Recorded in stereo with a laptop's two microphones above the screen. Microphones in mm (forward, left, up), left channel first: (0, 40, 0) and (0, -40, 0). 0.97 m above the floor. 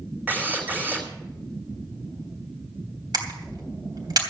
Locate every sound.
0.3 s a drill: 25° right (ahead or behind), 3 m
3.1 s a camera shutter: 60° right (ahead or behind), 3 m